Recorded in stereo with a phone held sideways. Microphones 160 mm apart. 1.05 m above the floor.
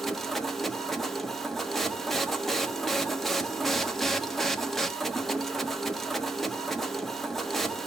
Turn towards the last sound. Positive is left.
turn(degrees=0)  # may be behind; listen again after turning